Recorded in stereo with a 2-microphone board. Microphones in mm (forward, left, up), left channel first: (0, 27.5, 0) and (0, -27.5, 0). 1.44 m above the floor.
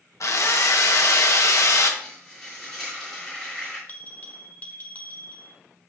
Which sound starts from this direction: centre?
Frying, at 2.0 s.